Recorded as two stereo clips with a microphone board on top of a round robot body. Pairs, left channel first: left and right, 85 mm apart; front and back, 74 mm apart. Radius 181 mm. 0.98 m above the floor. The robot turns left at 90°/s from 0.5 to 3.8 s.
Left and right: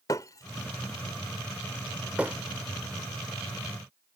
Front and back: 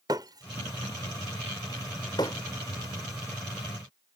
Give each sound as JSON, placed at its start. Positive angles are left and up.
{"t": 0.1, "sound": "breaking glass", "azimuth_deg": 135}